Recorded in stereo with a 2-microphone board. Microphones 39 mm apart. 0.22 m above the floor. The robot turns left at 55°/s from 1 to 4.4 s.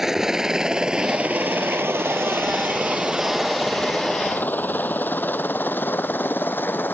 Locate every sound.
0.0 s a helicopter: 10° right (ahead or behind); by 7.0 s 55° left (ahead or behind)